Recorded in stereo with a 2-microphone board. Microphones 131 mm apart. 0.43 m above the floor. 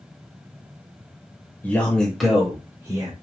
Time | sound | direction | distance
1.6 | a man speaking | 15° left (ahead or behind) | 1.9 m